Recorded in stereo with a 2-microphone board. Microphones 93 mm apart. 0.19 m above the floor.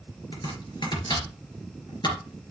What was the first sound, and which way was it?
Chopping, 60° left (ahead or behind).